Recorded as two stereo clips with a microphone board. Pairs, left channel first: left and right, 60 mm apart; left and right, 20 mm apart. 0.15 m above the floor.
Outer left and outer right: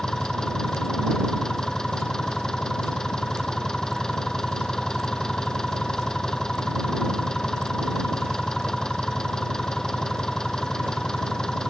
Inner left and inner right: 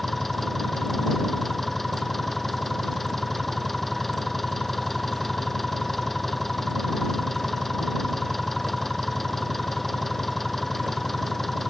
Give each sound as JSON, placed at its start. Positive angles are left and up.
{"t": 0.0, "sound": "an engine running", "side_deg": 10}